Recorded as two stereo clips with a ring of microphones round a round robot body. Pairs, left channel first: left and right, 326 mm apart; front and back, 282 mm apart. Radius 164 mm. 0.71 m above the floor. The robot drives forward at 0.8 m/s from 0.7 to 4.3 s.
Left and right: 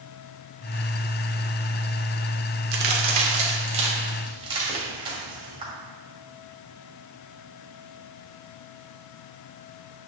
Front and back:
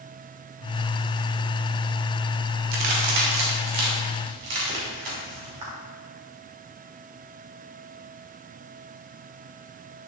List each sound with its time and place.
2.7 s a crack: 150° right, 1.1 m; by 5.7 s 165° right, 2.5 m